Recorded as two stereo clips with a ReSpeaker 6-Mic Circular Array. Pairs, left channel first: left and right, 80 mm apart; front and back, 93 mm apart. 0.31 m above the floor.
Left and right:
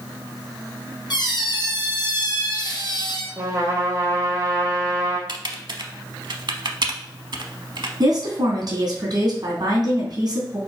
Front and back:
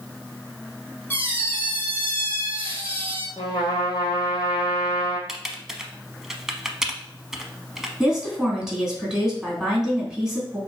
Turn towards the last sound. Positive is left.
turn(degrees=-95)